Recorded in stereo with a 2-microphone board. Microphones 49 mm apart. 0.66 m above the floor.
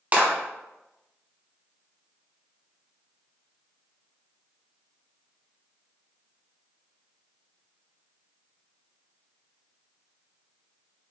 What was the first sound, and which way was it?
A clap, 30° right (ahead or behind).